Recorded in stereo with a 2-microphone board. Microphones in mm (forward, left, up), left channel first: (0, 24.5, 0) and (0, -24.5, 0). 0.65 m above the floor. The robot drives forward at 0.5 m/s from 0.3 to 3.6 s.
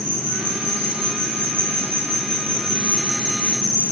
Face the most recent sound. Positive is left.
turn(degrees=-65)  # may be behind; listen again after turning